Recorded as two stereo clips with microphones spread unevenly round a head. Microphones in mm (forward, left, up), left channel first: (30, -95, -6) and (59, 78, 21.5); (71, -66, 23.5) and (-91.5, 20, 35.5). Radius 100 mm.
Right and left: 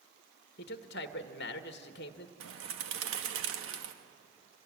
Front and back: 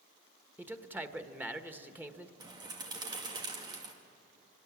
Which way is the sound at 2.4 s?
80° left.